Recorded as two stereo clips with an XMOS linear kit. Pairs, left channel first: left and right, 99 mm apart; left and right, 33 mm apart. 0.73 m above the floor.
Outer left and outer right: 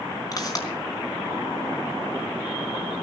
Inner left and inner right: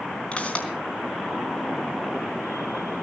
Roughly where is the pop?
Left.